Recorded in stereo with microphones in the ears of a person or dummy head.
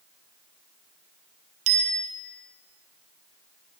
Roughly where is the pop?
No pop in this recording.